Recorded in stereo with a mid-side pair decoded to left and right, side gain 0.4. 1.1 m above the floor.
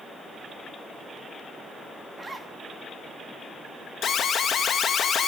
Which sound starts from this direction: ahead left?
An alarm, at 4.0 s.